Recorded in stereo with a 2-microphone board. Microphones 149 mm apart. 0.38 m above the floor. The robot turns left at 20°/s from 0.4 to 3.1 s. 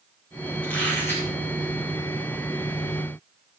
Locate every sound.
0.6 s a squeak: 10° left (ahead or behind), 4.5 m; by 1.3 s 20° left (ahead or behind), 4.5 m